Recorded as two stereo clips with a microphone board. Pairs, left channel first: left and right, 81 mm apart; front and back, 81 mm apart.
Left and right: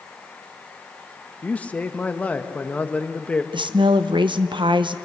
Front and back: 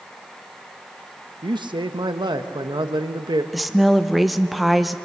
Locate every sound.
1.4 s a man speaking: 165° left, 1.0 m
3.5 s a woman speaking: 90° right, 0.8 m